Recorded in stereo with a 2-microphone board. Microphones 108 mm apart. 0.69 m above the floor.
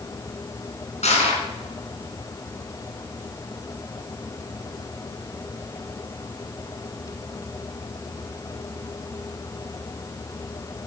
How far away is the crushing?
About 3.5 m.